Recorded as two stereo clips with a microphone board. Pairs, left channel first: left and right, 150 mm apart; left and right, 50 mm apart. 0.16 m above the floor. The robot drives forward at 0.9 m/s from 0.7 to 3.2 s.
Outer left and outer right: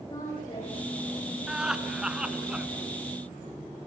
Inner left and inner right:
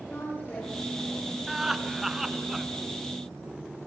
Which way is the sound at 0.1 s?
35° left (ahead or behind).